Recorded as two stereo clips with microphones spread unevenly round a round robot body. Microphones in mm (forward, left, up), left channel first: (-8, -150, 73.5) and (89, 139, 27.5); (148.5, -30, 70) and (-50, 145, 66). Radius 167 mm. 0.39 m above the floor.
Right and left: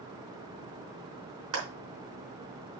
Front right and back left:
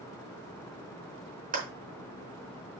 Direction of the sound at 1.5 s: 80° left.